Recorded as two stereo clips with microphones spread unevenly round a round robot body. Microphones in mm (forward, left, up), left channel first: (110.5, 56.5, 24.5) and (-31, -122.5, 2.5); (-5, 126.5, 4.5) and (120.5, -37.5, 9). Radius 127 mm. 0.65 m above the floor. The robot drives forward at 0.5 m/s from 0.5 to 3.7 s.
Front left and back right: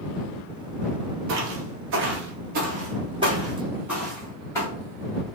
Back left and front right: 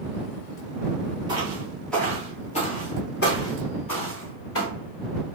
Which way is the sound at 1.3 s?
120° right.